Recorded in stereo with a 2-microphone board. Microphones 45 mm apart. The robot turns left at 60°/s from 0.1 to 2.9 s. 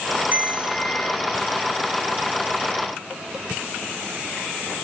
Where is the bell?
135° right, 1.8 m; by 1.2 s 175° left, 1.8 m.